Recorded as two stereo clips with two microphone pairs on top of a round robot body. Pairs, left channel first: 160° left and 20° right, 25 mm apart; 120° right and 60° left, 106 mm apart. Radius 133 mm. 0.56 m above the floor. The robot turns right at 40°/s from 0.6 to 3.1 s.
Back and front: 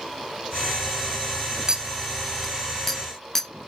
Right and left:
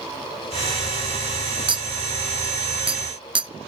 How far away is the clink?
About 0.7 m.